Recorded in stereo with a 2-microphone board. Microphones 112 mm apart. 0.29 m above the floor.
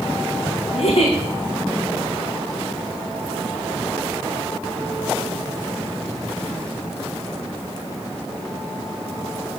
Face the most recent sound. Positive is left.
turn(degrees=60)  # may be behind; listen again after turning